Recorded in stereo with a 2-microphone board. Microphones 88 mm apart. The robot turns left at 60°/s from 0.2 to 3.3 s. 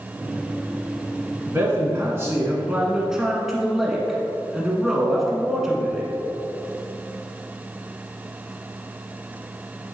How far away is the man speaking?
About 1.3 m.